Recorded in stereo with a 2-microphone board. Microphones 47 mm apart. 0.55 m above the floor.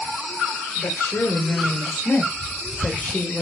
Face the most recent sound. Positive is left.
turn(degrees=15)  # may be behind; listen again after turning